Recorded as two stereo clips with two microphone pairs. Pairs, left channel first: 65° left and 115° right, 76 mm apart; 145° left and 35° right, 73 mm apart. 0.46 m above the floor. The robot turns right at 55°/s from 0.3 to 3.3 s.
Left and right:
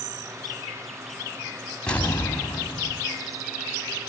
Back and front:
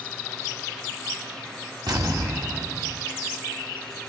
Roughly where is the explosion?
Ahead.